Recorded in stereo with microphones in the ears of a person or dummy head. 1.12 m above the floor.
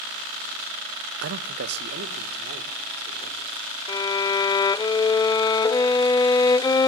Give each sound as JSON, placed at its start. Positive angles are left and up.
{"t": 1.2, "sound": "a man speaking", "side_deg": -65, "distance_m": 0.7}
{"t": 3.9, "sound": "a violin", "side_deg": 20, "distance_m": 0.5}